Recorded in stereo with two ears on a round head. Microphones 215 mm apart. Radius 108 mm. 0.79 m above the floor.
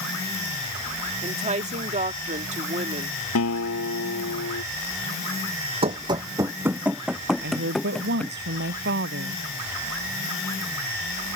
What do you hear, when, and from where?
1.2 s a woman speaking: 30° right (ahead or behind)
3.4 s a guitar: 70° left (ahead or behind)
5.8 s running footsteps: 25° right (ahead or behind); by 8.4 s 5° left (ahead or behind)
7.4 s a woman speaking: 50° right (ahead or behind)